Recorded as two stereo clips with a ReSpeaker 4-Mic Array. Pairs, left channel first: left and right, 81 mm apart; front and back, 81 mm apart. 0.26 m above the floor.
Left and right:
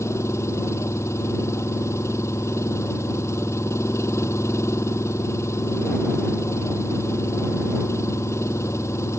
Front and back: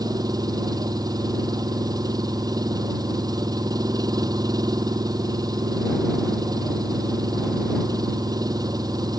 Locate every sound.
0.0 s an engine running: 145° left